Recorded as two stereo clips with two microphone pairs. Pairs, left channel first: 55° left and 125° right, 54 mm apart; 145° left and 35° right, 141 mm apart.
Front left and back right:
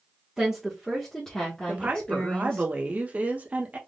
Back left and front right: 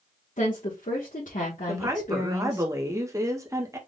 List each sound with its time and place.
0.4 s a woman speaking: 155° left, 1.4 m; by 2.7 s 115° left, 1.9 m
1.7 s a woman speaking: 85° right, 1.0 m